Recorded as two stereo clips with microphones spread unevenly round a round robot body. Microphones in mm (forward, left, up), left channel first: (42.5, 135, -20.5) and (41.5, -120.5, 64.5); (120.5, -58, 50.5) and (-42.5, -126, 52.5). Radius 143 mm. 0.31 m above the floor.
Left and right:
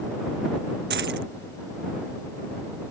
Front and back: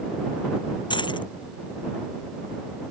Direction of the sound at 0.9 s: 40° right.